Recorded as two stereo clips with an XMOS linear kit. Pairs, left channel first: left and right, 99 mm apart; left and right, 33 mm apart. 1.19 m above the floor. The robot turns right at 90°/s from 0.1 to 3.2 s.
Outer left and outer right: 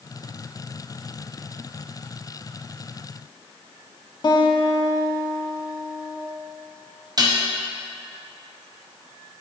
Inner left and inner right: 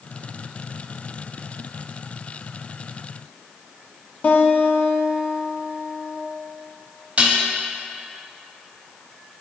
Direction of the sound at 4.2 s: 50° left (ahead or behind).